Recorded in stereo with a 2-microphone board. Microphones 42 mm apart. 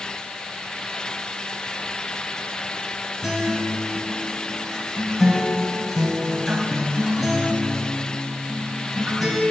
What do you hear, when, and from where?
3.2 s a guitar: 5° right (ahead or behind), 4 m